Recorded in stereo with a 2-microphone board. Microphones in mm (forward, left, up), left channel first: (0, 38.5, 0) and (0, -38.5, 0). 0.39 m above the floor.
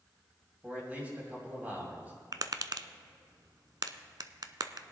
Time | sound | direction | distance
0.6 | a man speaking | 25° right (ahead or behind) | 2.5 m
2.3 | tapping | 60° right (ahead or behind) | 0.6 m